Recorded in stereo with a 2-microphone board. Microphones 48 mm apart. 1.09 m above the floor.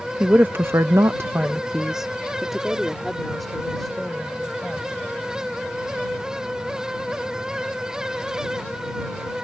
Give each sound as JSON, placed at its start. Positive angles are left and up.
{"t": 0.2, "sound": "a woman speaking", "side_deg": -35}